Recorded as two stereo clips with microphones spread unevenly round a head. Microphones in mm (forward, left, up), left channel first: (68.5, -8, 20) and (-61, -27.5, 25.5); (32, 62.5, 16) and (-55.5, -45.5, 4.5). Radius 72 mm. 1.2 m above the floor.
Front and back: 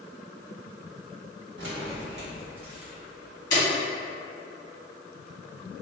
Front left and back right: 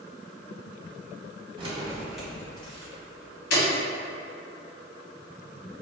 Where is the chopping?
I don't hear chopping.